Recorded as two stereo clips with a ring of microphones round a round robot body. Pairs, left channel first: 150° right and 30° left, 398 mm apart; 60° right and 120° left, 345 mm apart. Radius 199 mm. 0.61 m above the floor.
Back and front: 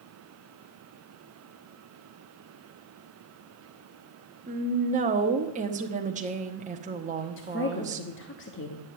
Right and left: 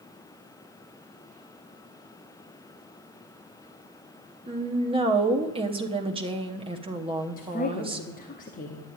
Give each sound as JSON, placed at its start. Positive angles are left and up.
{"t": 4.5, "sound": "a woman speaking", "azimuth_deg": 70, "distance_m": 1.0}
{"t": 7.4, "sound": "a woman speaking", "azimuth_deg": -110, "distance_m": 1.1}